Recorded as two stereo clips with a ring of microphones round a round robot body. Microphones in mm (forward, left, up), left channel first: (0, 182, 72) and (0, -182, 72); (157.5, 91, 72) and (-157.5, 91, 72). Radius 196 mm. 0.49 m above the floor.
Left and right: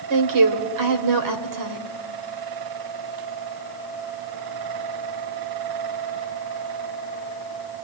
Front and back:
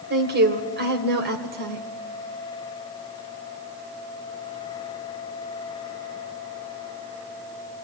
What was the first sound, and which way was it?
A woman speaking, 120° right.